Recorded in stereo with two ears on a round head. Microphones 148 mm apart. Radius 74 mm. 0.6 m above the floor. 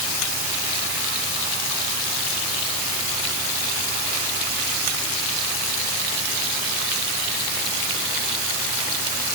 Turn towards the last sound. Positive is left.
No sound to turn to.